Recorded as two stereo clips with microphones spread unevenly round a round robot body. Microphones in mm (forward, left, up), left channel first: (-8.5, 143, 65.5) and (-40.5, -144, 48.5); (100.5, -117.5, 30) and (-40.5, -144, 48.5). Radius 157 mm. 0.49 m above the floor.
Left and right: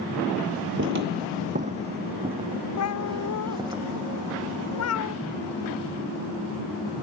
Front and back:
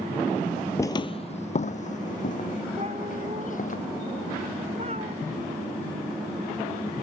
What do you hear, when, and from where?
0.8 s footsteps: 60° right; by 3.8 s 20° right
2.8 s a cat meowing: 120° left